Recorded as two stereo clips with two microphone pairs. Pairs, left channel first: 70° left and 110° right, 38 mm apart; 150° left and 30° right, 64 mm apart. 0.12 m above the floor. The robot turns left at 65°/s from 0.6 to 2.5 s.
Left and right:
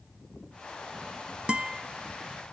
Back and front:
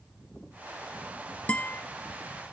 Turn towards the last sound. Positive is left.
turn(degrees=140)